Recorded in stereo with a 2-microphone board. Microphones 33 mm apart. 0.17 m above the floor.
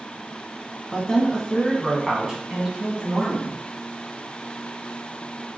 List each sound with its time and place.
0.9 s a woman speaking: 20° left (ahead or behind), 1.6 m; by 3.6 s 35° right (ahead or behind), 1.8 m